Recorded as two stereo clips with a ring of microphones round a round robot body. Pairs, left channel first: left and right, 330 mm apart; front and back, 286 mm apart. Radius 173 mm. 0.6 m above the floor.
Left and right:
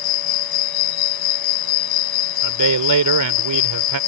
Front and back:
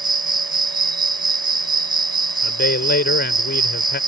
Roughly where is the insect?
Left.